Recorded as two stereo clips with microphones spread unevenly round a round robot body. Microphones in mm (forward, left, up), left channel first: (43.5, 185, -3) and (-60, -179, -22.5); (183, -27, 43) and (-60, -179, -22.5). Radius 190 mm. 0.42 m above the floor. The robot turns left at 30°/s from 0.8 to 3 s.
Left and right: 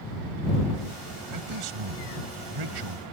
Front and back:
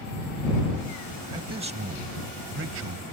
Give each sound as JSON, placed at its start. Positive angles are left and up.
{"t": 1.3, "sound": "a man speaking", "azimuth_deg": -80}